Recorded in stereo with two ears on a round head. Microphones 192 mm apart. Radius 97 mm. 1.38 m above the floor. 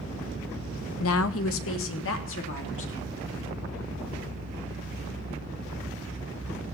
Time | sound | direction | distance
1.0 | a woman speaking | 70° left (ahead or behind) | 0.8 m